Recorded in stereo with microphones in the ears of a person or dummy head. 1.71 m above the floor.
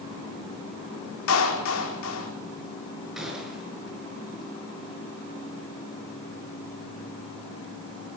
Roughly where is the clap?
Left.